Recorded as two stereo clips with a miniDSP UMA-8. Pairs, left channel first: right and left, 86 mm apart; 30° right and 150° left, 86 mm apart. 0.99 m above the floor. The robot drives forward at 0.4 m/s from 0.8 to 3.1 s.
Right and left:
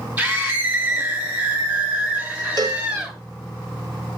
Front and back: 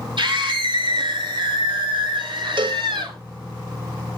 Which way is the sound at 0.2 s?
165° left.